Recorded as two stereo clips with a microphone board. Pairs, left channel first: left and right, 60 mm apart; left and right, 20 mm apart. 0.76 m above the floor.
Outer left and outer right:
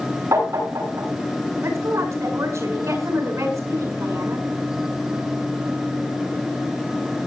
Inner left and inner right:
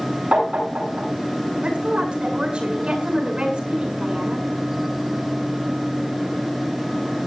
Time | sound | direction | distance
0.3 | tapping | 60° right (ahead or behind) | 9 m
1.6 | a woman speaking | 60° right (ahead or behind) | 7 m